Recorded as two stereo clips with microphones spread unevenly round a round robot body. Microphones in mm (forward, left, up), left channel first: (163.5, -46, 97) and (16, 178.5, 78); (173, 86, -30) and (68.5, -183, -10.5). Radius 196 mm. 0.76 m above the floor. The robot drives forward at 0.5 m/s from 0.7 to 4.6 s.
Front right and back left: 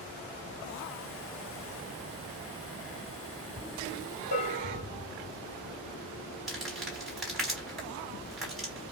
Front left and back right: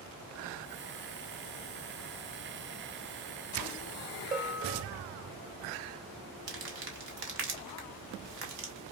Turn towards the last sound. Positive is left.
turn(degrees=-150)